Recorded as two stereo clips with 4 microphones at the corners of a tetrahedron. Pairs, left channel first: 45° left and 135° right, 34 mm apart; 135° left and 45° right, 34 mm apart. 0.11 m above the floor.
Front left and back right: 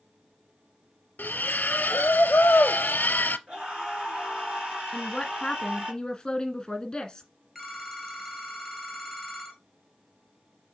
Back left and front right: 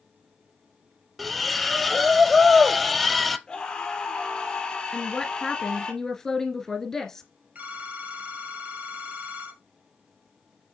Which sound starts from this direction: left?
A woman speaking, at 4.9 s.